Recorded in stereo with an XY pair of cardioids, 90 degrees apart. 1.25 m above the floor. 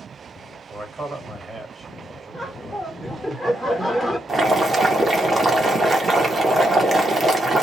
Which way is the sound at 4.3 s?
40° right.